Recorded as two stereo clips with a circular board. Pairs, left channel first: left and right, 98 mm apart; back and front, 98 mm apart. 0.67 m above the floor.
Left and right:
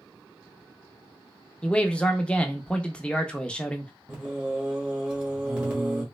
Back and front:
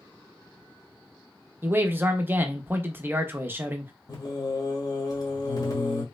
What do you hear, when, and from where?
1.6 s a man speaking: 30° left, 0.5 m
4.1 s singing: 165° right, 1.3 m